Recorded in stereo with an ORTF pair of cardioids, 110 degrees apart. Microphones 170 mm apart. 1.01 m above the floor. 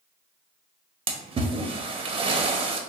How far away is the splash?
About 0.8 m.